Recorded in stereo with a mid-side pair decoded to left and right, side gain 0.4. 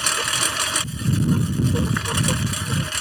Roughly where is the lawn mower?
Ahead.